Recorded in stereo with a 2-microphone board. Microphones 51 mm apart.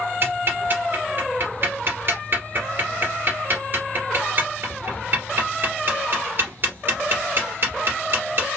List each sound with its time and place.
0.2 s ticking: 45° right (ahead or behind), 2.5 m